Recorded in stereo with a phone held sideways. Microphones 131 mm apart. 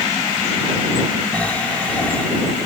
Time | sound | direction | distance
1.3 | snoring | 10° left (ahead or behind) | ?